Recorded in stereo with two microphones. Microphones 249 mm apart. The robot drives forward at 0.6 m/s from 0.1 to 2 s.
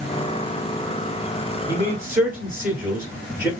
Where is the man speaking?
10° right (ahead or behind), 1.7 m.